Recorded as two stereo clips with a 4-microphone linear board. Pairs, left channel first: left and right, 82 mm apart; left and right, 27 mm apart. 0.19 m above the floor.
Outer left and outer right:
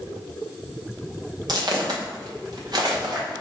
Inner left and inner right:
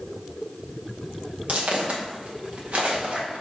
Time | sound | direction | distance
1.5 | footsteps | 55° right (ahead or behind) | 2 m